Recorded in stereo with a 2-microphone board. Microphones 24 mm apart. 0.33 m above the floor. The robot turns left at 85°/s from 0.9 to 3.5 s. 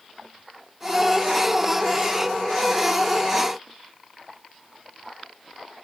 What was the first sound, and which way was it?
Only background noise.